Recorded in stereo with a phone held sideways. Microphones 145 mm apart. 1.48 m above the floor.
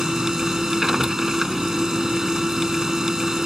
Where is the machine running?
5° right (ahead or behind).